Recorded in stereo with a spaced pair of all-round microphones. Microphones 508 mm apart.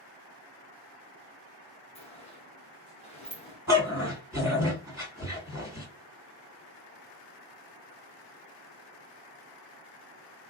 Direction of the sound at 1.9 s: 10° left (ahead or behind).